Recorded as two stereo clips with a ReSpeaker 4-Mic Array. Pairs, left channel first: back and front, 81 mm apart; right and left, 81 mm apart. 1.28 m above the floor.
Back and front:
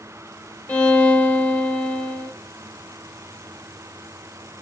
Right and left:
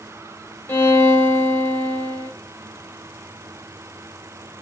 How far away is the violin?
About 1.0 m.